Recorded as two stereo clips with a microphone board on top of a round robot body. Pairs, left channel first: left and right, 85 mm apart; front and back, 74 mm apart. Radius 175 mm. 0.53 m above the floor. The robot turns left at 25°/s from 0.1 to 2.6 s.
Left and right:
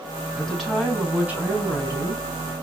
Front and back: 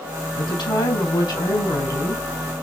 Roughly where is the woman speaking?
Ahead.